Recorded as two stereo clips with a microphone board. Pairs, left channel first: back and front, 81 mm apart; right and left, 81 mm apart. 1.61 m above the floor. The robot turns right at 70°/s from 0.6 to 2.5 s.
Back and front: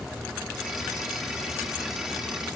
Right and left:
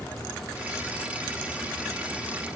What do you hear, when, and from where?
Only background noise.